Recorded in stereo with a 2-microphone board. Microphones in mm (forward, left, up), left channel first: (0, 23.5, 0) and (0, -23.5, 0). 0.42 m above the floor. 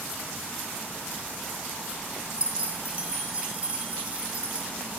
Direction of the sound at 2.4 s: 30° right (ahead or behind).